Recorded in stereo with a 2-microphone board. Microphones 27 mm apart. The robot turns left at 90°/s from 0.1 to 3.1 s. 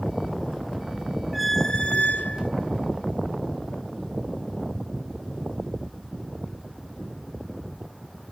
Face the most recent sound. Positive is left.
turn(degrees=25)